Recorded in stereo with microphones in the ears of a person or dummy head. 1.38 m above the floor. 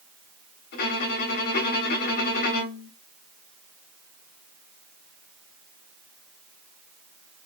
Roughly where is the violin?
Left.